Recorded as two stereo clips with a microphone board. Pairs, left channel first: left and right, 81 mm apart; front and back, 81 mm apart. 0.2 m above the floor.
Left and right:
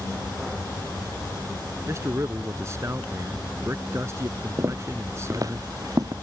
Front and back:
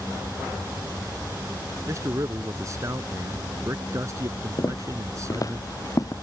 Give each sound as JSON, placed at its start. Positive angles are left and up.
{"t": 1.9, "sound": "a man speaking", "azimuth_deg": -140}
{"t": 4.6, "sound": "footsteps", "azimuth_deg": -40}